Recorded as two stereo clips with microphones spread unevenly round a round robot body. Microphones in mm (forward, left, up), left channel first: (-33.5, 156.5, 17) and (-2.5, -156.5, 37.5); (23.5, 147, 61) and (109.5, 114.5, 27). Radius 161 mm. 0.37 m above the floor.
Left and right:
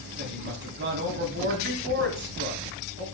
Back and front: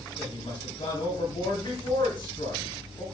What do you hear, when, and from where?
0.2 s a woman speaking: 140° right, 3 m